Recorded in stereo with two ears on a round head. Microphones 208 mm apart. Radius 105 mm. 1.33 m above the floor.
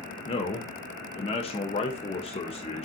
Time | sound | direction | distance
0.3 | a man speaking | 25° left (ahead or behind) | 0.9 m